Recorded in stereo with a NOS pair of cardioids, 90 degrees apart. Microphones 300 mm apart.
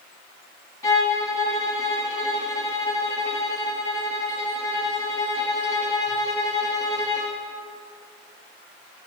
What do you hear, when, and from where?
0.8 s a violin: 10° left, 1.5 m